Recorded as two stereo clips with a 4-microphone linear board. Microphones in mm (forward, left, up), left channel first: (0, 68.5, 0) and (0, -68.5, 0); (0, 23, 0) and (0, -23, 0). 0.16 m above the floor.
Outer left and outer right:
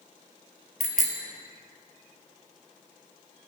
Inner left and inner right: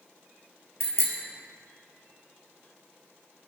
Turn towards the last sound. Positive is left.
turn(degrees=65)  # may be behind; listen again after turning